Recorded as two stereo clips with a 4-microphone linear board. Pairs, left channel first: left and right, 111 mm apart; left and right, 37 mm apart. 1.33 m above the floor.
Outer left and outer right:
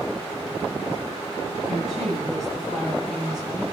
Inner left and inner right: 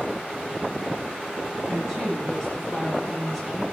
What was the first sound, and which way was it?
A woman speaking, 5° left (ahead or behind).